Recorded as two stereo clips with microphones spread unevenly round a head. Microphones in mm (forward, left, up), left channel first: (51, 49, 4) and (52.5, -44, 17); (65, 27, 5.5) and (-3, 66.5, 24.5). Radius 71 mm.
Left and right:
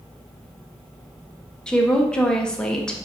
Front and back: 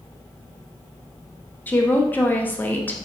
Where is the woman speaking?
20° left, 0.6 m.